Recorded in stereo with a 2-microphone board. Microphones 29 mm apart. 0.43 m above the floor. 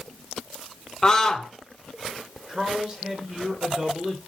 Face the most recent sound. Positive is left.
turn(degrees=-25)  # may be behind; listen again after turning